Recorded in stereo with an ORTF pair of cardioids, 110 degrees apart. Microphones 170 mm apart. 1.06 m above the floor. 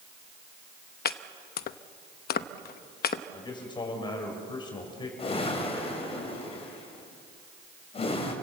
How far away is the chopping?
About 0.9 m.